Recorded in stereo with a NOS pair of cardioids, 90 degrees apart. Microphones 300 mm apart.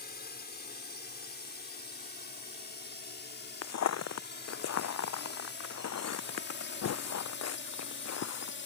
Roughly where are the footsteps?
Ahead left.